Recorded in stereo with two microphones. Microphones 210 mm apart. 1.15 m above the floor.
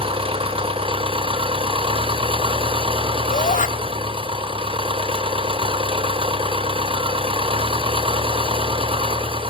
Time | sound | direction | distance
0.0 | an engine running | 25° right (ahead or behind) | 0.9 m
3.3 | a shout | 40° left (ahead or behind) | 1.2 m